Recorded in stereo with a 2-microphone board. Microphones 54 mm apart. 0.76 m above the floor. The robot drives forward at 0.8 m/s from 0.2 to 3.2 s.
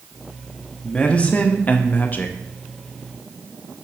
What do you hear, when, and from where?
0.8 s a man speaking: 20° left (ahead or behind), 1.2 m; by 2.4 s 30° left (ahead or behind), 0.8 m